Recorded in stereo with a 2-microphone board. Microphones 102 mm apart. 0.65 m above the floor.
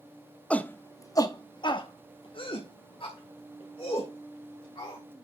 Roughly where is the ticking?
I don't hear ticking.